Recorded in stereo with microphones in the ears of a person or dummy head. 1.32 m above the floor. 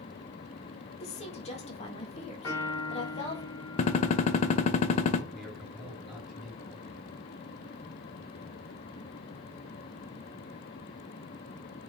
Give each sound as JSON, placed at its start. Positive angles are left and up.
{"t": 1.0, "sound": "a woman speaking", "side_deg": 40, "distance_m": 1.6}
{"t": 2.4, "sound": "a piano", "side_deg": 25, "distance_m": 3.0}
{"t": 3.8, "sound": "a gunshot", "side_deg": 40, "distance_m": 0.7}
{"t": 5.3, "sound": "a man speaking", "side_deg": 5, "distance_m": 3.0}